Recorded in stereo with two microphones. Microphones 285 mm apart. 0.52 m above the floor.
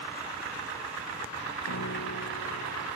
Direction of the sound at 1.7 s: 65° left (ahead or behind).